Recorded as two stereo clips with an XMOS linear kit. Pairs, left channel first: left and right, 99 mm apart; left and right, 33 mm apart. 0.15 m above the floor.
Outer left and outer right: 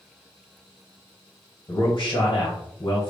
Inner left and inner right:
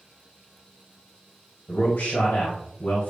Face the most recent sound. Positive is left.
turn(degrees=55)  # may be behind; listen again after turning